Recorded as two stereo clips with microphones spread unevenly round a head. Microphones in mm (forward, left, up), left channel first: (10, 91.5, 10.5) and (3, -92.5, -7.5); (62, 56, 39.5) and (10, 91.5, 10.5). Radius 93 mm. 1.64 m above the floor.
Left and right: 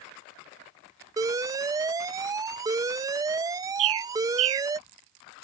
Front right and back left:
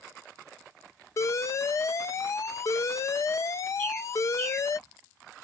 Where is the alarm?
20° right.